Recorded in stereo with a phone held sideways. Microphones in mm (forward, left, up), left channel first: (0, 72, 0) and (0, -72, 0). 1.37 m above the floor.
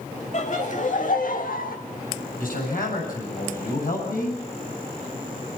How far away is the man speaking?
About 8.5 m.